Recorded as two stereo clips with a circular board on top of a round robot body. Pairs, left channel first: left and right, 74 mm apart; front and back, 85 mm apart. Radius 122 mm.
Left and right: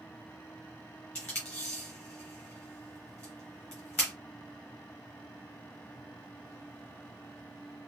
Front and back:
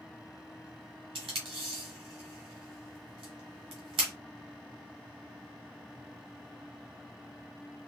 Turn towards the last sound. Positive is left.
turn(degrees=165)